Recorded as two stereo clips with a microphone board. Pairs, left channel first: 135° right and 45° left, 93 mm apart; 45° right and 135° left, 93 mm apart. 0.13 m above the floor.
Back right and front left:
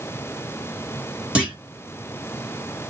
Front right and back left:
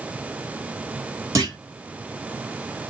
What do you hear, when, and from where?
1.4 s a clunk: 115° left, 1.6 m